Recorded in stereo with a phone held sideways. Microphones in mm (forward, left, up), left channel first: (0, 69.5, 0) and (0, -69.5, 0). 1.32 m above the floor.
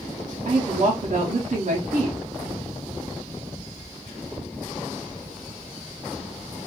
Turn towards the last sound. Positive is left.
turn(degrees=-60)  # may be behind; listen again after turning